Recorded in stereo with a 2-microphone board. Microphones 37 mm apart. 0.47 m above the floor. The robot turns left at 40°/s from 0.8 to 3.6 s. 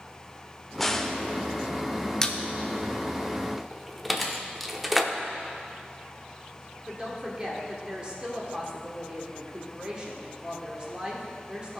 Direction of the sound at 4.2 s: 5° right (ahead or behind).